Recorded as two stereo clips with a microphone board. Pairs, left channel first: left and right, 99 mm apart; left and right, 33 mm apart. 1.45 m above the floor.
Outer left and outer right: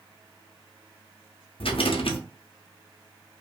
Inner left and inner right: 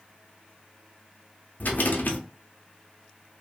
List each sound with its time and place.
1.6 s a rattle: 65° left (ahead or behind), 0.6 m